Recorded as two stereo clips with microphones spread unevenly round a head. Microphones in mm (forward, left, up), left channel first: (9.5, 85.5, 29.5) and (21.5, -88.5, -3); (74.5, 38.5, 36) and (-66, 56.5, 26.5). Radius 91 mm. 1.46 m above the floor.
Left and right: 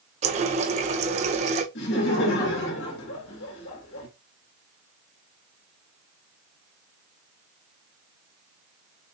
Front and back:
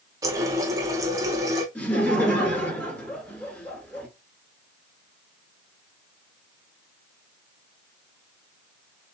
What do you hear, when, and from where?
0.2 s a running tap: 125° right, 0.6 m
1.8 s laughter: 75° left, 3 m